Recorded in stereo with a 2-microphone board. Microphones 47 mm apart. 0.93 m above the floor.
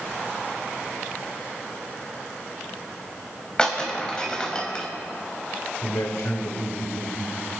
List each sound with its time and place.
3.6 s breaking glass: 20° left (ahead or behind), 2.5 m
5.8 s a man speaking: 80° left, 3.5 m